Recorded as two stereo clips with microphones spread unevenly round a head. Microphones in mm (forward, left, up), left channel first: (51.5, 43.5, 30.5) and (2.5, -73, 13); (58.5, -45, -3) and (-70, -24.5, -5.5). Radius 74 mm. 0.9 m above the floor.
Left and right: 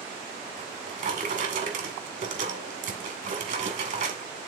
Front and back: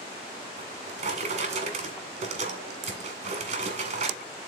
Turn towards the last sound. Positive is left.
turn(degrees=-150)